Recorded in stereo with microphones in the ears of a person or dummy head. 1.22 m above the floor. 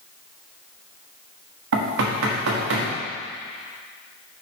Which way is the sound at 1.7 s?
75° right (ahead or behind).